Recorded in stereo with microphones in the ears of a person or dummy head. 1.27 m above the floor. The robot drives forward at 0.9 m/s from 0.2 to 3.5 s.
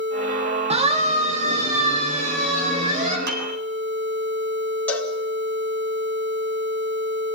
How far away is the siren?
About 3 m.